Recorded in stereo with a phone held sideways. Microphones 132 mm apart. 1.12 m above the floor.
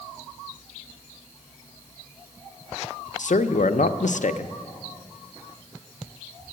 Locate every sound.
3.2 s a man speaking: 70° left (ahead or behind), 0.5 m